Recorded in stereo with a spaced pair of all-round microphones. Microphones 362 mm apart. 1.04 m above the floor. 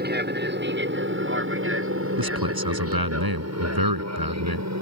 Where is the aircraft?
25° right (ahead or behind); by 4.8 s 50° right (ahead or behind).